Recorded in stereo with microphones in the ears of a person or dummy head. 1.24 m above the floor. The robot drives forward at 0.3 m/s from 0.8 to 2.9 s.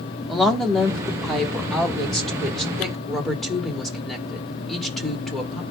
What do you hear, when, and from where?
0.3 s a woman speaking: centre (ahead or behind), 1.5 m